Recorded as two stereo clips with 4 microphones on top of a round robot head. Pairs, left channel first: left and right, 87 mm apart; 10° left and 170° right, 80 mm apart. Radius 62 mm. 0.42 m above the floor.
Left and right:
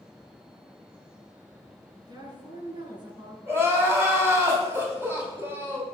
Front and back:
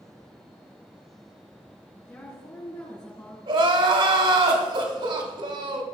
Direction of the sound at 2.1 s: 50° right.